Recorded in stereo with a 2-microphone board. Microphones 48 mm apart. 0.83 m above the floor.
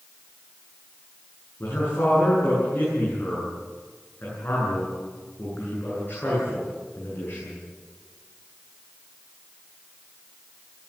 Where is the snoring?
I don't hear snoring.